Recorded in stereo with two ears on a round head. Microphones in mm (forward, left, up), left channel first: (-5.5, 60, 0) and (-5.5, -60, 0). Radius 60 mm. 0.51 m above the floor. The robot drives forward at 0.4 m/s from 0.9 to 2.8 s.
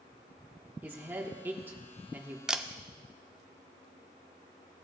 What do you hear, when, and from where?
0.8 s a man speaking: 15° right (ahead or behind), 0.9 m
2.5 s a camera shutter: 5° right (ahead or behind), 0.5 m